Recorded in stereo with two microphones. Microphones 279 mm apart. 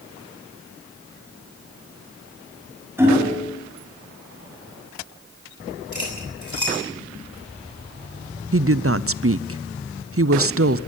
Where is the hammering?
10° right (ahead or behind), 5.5 m.